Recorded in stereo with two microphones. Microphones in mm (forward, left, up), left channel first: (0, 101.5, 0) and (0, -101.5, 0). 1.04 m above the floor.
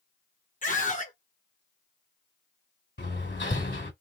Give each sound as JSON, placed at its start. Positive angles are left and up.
{"t": 0.6, "sound": "a scream", "side_deg": 40, "distance_m": 1.1}
{"t": 3.0, "sound": "hammering", "side_deg": 60, "distance_m": 1.9}